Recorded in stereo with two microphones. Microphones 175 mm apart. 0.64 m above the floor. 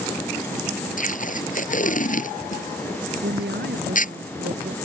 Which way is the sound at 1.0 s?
50° left (ahead or behind).